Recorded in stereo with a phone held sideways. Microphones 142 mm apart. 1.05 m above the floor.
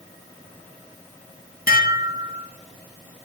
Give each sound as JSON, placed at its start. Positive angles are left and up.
{"t": 1.7, "sound": "dishes clattering", "side_deg": 85, "distance_m": 0.5}